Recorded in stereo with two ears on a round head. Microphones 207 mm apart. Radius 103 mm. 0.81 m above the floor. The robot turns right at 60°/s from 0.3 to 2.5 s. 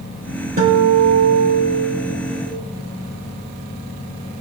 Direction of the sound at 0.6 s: 140° right.